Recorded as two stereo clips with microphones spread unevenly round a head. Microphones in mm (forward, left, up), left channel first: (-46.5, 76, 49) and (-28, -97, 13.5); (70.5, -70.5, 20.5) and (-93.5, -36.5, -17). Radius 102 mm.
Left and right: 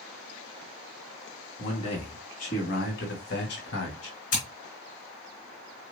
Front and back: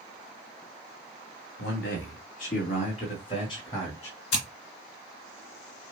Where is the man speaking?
30° left, 3 m; by 4.2 s 65° left, 2.5 m.